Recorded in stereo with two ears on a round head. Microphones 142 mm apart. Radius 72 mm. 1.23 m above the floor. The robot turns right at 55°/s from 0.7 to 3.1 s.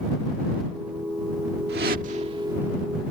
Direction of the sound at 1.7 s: 70° right (ahead or behind).